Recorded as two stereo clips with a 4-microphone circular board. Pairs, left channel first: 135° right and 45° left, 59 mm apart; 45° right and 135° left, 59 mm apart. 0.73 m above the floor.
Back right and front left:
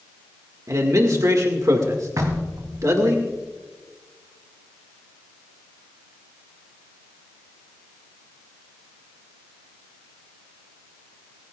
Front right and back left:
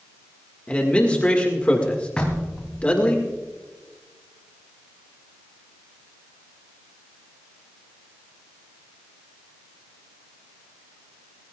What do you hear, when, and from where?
0.7 s a man speaking: 20° left, 1.8 m
2.2 s knocking: 25° left, 3 m